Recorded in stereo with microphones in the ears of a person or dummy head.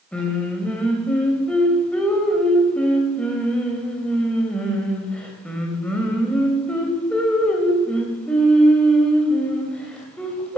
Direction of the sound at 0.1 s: 5° left (ahead or behind).